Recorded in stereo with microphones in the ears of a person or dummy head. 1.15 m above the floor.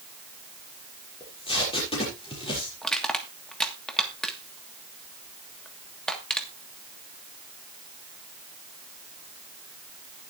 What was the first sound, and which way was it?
Tape being pulled, 25° left (ahead or behind).